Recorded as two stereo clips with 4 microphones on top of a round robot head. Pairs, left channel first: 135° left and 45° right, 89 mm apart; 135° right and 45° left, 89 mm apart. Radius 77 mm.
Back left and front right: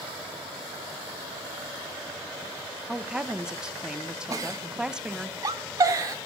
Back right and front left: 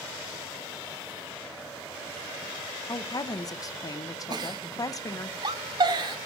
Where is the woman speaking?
125° right, 0.8 m.